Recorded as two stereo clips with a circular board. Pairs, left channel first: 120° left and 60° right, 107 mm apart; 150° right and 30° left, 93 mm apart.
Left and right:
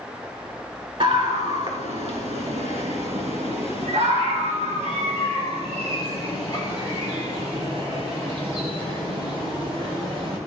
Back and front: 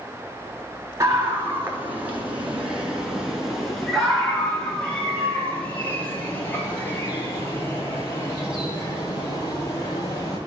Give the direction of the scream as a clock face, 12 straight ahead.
1 o'clock.